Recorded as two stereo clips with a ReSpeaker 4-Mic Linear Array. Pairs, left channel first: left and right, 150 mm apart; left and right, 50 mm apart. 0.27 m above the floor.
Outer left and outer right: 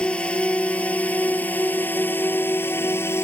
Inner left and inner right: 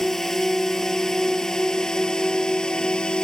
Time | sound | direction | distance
0.0 | a drone | 5° left (ahead or behind) | ?